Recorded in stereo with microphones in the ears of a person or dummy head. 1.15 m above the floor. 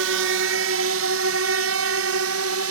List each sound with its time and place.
0.0 s a drone: 70° right (ahead or behind); by 2.7 s 75° right (ahead or behind)